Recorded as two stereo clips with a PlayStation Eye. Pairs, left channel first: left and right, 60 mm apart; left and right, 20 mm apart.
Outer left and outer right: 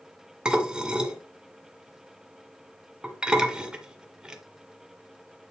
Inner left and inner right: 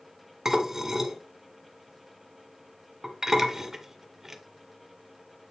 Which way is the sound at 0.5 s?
15° right (ahead or behind).